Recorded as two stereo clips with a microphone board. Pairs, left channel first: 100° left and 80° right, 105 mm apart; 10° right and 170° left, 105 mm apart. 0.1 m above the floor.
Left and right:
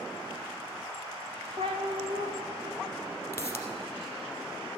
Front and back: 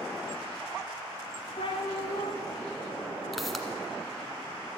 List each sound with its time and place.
1.6 s a cat meowing: 45° right, 1.6 m
3.3 s a pop: 80° left, 1.4 m